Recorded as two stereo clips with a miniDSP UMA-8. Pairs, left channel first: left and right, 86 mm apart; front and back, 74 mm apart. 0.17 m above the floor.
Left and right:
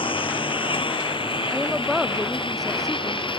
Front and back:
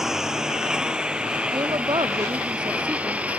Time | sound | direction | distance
0.0 | a lawn mower | 95° left | ?
1.5 | a woman speaking | straight behind | ?